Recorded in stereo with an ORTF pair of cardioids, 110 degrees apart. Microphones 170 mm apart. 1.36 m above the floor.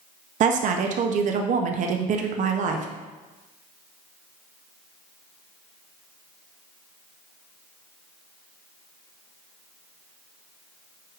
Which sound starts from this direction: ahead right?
A woman speaking, at 0.4 s.